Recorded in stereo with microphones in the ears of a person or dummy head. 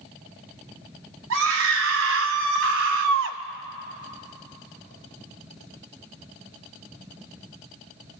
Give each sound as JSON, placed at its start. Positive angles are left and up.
{"t": 1.3, "sound": "a scream", "side_deg": -75, "distance_m": 3.0}